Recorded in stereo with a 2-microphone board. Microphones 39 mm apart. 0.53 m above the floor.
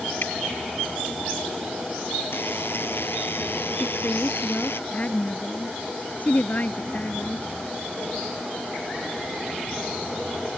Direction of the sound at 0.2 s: 60° left (ahead or behind).